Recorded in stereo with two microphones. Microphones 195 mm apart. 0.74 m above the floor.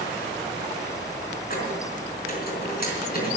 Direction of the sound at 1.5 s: 50° left (ahead or behind).